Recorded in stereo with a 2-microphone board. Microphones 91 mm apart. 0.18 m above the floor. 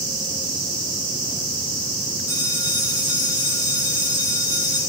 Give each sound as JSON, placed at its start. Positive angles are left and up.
{"t": 2.3, "sound": "a bell", "side_deg": 50, "distance_m": 2.5}